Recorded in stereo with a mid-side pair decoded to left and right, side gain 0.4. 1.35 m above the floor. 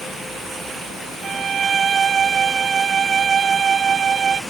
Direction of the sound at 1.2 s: 60° right.